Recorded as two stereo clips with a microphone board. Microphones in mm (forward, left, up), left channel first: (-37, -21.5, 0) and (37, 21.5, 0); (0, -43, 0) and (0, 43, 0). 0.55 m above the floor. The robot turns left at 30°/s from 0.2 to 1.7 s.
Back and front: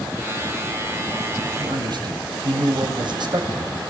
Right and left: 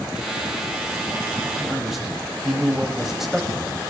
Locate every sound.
1.6 s a man speaking: 5° left, 3.5 m